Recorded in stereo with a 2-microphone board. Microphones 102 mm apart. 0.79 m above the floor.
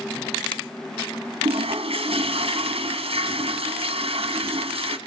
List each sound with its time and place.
1.4 s a toilet flushing: 65° right (ahead or behind), 1.7 m